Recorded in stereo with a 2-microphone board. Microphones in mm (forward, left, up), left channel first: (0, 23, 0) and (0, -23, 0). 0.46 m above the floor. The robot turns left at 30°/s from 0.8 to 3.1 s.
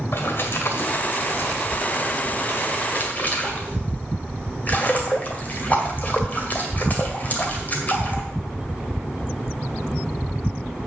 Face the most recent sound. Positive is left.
turn(degrees=35)  # may be behind; listen again after turning